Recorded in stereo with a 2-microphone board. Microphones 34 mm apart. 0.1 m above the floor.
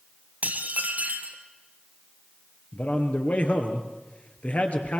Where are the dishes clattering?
50° right (ahead or behind), 1.9 m.